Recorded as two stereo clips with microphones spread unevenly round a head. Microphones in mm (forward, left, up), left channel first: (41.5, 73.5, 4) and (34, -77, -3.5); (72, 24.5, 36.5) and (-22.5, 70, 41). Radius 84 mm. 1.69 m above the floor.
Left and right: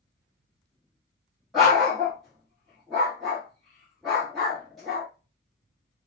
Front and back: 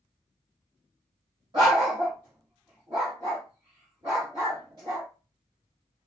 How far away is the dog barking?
About 1.3 m.